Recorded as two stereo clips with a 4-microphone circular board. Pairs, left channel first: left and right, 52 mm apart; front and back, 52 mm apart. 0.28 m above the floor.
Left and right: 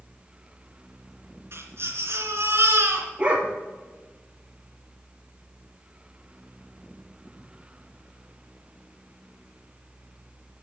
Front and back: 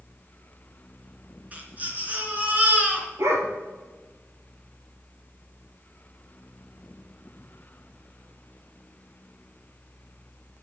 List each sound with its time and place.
1.5 s a baby crying: 120° right, 3 m
3.2 s a dog barking: 155° right, 2 m